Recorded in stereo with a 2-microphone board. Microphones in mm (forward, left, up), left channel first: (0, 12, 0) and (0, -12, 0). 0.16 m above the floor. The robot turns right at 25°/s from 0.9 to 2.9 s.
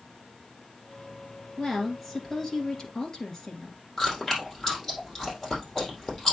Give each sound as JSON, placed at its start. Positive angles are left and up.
{"t": 1.6, "sound": "a woman speaking", "azimuth_deg": -5, "distance_m": 2.5}
{"t": 4.0, "sound": "chewing", "side_deg": 20, "distance_m": 3.5}